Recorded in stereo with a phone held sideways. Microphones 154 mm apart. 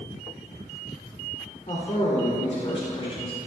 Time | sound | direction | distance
1.7 | a man speaking | 50° left (ahead or behind) | 3.5 m